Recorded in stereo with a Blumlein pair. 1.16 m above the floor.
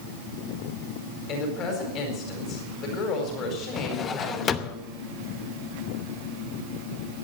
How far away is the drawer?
About 0.8 m.